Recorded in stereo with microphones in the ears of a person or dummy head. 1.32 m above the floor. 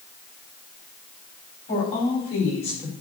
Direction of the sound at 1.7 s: 40° left (ahead or behind).